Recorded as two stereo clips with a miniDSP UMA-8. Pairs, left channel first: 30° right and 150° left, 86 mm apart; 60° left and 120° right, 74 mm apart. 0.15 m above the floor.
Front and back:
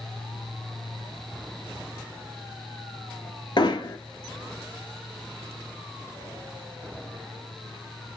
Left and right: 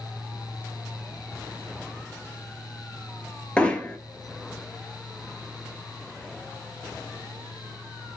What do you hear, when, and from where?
3.6 s hammering: 10° right, 1.0 m